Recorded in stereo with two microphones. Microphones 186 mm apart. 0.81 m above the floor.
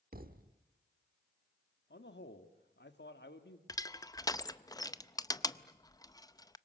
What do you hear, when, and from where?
0.1 s a thud: 50° right (ahead or behind), 1.0 m
1.9 s a man speaking: 70° left (ahead or behind), 1.7 m
3.7 s crushing: 20° left (ahead or behind), 0.5 m